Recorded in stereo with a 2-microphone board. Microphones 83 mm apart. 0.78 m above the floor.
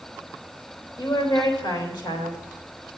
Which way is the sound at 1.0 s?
65° left (ahead or behind).